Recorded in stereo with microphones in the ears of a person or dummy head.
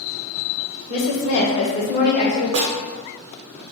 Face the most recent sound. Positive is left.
turn(degrees=-70)  # may be behind; listen again after turning